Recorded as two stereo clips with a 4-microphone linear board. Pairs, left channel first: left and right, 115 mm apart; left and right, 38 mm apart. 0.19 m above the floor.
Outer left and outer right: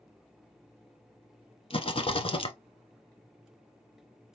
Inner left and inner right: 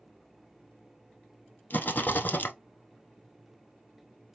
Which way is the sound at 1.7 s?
55° left (ahead or behind).